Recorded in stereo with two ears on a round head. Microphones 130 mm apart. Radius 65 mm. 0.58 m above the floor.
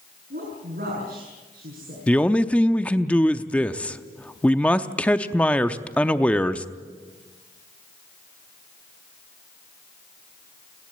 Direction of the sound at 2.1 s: 10° left (ahead or behind).